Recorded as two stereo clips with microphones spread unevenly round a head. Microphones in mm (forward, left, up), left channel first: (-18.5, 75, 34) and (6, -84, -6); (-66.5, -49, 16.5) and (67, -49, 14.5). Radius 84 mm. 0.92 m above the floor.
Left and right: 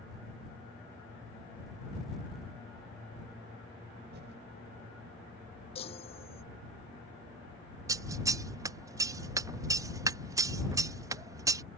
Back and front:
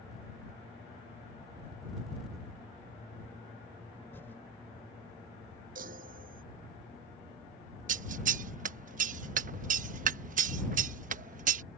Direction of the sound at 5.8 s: 45° left.